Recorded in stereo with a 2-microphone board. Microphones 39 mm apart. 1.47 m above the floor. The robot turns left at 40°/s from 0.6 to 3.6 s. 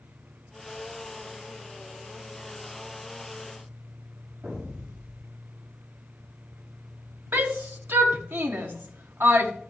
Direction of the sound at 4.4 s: 55° right (ahead or behind).